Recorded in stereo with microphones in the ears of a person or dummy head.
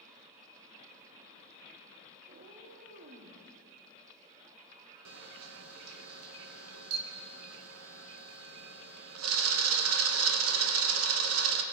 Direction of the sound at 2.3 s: 45° right (ahead or behind).